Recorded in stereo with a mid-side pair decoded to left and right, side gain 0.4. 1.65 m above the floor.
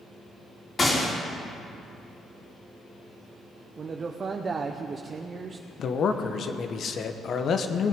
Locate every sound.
0.8 s a gunshot: 35° left, 3 m
3.8 s a man speaking: 45° right, 0.9 m
5.8 s a man speaking: 60° left, 1.1 m